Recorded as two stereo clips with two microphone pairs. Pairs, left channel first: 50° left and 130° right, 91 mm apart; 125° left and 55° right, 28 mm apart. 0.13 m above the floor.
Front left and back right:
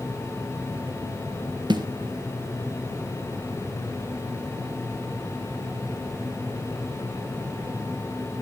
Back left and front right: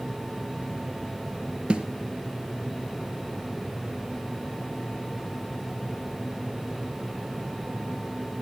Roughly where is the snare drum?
Right.